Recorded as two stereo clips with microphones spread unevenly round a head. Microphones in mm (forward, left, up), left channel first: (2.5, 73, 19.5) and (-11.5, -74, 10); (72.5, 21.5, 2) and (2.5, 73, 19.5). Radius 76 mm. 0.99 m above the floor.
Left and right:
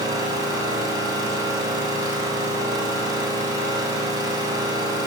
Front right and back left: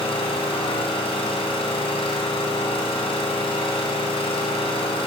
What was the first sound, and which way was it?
An engine running, 30° right.